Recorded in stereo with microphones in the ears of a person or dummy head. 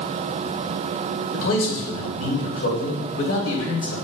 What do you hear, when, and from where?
1.3 s a man speaking: 65° left (ahead or behind), 2.5 m